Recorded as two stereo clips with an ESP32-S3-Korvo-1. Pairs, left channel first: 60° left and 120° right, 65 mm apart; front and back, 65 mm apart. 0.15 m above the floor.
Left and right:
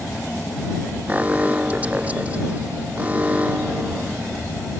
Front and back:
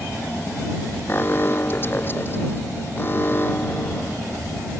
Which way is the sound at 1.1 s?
55° right.